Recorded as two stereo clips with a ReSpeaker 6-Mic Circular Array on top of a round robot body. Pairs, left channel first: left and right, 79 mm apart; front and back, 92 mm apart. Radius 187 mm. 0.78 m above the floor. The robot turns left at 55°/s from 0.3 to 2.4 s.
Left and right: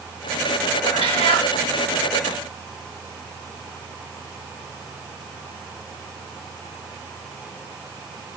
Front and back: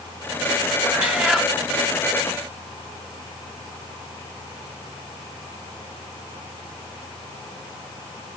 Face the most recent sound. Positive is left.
turn(degrees=30)